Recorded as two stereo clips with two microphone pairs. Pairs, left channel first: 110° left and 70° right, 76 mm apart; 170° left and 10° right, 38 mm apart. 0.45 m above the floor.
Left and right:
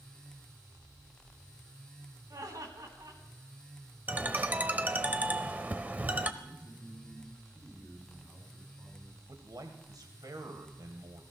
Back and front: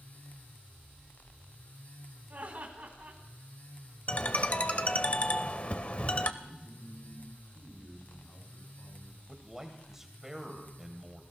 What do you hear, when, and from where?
2.3 s laughter: 50° right, 3 m
4.1 s a ringtone: 135° right, 0.8 m
6.4 s a man speaking: 175° right, 5 m
9.3 s a man speaking: 85° right, 1.7 m